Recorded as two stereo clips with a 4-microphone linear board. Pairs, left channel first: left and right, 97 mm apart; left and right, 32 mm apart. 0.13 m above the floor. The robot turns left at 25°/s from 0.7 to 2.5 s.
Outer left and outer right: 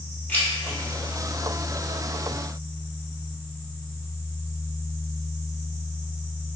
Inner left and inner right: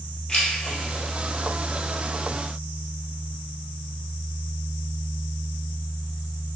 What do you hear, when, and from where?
0.3 s keys jangling: 15° left (ahead or behind), 2.0 m; by 0.8 s 20° left (ahead or behind), 2.0 m